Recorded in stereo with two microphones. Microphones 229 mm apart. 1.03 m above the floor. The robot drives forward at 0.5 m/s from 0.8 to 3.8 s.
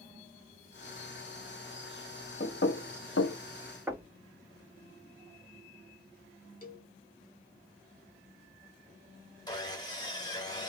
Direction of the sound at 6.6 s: 35° left (ahead or behind).